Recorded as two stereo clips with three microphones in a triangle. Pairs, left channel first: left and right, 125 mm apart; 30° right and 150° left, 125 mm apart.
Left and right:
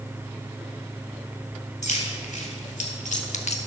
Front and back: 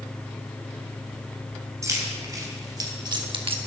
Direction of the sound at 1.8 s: 85° left.